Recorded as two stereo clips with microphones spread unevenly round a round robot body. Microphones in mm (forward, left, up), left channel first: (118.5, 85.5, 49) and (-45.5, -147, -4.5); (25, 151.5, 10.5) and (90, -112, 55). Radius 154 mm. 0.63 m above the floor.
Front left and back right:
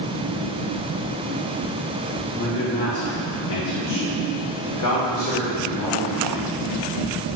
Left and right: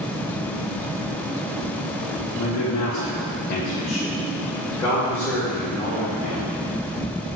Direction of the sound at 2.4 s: 115° left.